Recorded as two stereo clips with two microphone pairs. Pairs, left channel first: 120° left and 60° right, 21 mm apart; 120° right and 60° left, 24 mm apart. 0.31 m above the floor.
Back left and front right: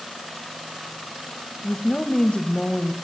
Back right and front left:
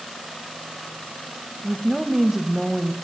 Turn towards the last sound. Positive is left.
turn(degrees=130)